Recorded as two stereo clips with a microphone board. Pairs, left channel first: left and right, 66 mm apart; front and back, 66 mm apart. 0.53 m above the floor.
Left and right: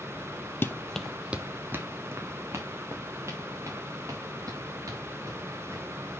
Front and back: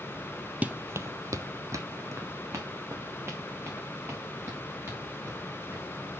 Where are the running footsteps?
125° left, 0.7 m; by 5.8 s 130° right, 5.5 m.